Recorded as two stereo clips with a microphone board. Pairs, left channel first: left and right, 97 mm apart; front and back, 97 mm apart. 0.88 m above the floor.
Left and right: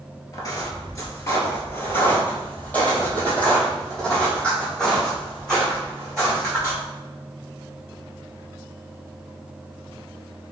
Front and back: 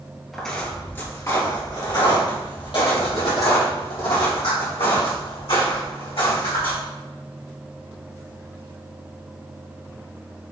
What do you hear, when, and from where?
0.3 s footsteps: 85° left, 1.0 m; by 6.8 s 5° left, 4 m